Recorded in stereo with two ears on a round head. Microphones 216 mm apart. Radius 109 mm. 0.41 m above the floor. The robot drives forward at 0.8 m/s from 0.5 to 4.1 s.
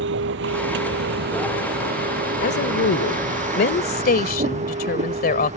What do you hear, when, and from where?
0.0 s a vehicle: 55° right (ahead or behind); by 5.6 s 30° right (ahead or behind)
2.4 s a woman speaking: 45° left (ahead or behind); by 5.6 s 40° left (ahead or behind)